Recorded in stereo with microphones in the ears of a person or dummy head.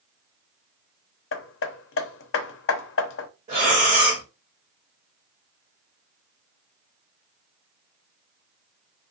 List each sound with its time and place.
1.3 s hammering: 75° left (ahead or behind), 0.6 m
3.5 s breathing: 40° right (ahead or behind), 1.2 m